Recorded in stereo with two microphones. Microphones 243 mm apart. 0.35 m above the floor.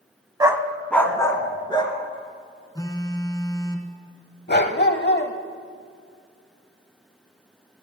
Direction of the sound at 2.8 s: 15° left (ahead or behind).